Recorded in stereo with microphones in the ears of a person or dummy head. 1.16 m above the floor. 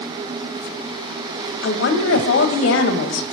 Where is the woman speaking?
75° left (ahead or behind), 1.3 m.